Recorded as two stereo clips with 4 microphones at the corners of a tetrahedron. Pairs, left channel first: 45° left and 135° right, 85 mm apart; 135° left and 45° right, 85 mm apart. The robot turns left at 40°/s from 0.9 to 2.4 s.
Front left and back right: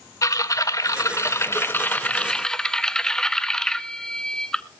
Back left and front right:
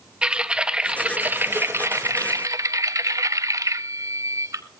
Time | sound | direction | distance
0.2 | typing on a keyboard | 25° left | 0.6 m